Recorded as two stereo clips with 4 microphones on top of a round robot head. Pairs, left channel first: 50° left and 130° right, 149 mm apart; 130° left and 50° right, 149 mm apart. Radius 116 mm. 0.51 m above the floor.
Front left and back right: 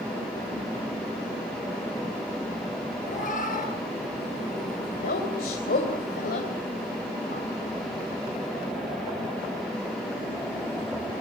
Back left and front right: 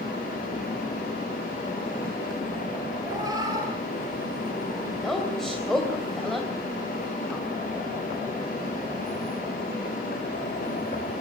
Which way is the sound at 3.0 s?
20° left.